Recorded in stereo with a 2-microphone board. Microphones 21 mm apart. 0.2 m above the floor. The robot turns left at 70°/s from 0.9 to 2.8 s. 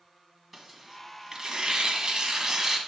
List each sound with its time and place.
0.5 s tearing paper: straight ahead, 1.5 m; by 2.8 s 135° right, 1.5 m